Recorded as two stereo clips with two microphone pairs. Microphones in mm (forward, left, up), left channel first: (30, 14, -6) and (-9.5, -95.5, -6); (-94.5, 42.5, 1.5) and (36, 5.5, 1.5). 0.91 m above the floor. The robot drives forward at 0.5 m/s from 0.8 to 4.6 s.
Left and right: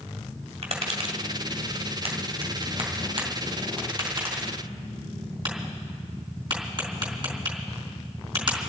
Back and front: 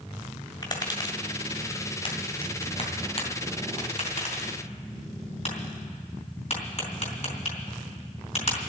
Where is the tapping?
140° right, 1.9 m; by 8.6 s 160° right, 3.5 m.